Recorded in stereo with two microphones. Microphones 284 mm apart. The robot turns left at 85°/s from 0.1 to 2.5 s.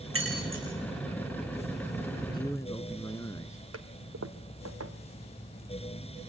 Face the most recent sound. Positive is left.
turn(degrees=-65)  # may be behind; listen again after turning